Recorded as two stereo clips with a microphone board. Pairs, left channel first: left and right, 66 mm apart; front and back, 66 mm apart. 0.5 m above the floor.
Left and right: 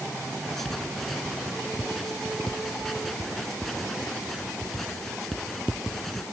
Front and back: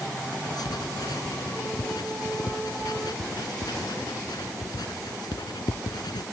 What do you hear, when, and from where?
0.4 s writing: 5° left